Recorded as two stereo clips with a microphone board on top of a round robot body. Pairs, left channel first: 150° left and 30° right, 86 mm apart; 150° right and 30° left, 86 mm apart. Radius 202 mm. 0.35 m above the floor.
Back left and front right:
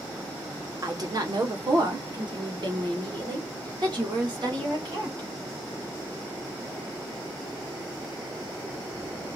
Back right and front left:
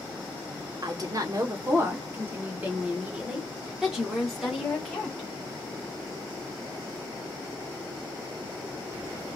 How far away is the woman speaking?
About 1.6 m.